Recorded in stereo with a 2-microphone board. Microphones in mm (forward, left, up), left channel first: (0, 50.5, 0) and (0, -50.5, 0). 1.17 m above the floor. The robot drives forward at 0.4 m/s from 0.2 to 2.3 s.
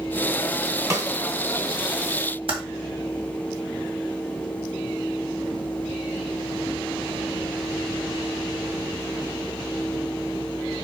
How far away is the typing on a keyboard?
About 2.5 m.